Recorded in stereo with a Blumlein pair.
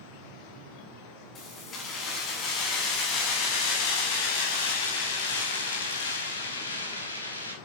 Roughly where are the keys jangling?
Ahead left.